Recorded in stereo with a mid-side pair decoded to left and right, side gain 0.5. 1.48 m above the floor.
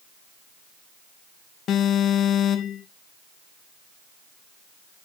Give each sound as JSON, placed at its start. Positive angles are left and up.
{"t": 1.7, "sound": "an alarm", "azimuth_deg": 65, "distance_m": 2.5}